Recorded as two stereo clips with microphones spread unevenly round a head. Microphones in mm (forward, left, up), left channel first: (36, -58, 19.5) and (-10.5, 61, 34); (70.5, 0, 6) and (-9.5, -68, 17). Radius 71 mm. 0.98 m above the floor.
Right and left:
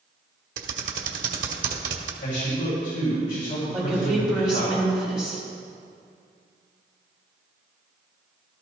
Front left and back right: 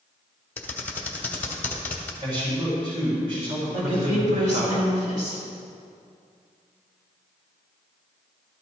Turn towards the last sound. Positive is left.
turn(degrees=-165)